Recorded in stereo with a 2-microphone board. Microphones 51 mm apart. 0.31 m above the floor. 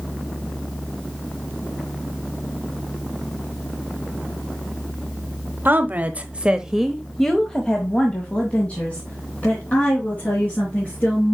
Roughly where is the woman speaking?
Right.